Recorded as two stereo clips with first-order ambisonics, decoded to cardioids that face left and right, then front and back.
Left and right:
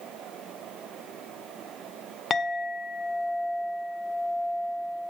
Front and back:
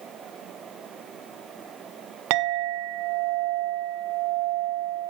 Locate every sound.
2.3 s a clink: 160° left, 1.2 m